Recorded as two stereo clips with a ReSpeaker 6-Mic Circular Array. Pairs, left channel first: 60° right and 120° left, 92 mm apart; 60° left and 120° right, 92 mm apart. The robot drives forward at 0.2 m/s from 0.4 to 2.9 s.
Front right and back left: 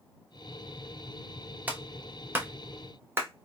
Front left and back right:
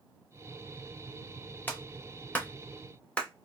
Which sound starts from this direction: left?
A clap, at 1.7 s.